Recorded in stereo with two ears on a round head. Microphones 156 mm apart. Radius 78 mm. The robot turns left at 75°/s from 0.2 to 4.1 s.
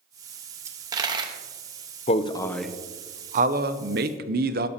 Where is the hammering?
I don't hear hammering.